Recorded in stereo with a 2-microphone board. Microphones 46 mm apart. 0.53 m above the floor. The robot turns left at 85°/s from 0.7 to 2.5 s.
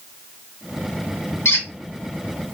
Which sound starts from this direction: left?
A squeak, at 1.4 s.